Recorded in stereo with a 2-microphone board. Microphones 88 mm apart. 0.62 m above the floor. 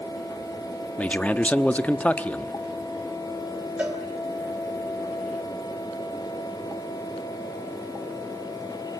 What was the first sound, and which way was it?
A man speaking, 15° left (ahead or behind).